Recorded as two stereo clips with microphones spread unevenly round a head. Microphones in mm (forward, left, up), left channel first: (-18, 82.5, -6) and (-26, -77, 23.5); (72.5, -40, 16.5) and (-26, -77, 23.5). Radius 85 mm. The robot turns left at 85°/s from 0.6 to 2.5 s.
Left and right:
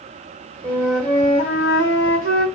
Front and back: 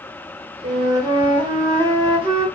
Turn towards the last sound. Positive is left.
turn(degrees=50)